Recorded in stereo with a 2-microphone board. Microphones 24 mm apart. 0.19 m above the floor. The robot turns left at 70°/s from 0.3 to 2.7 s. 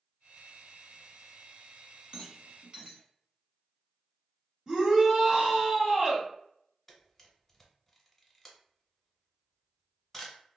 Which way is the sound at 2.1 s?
50° right (ahead or behind).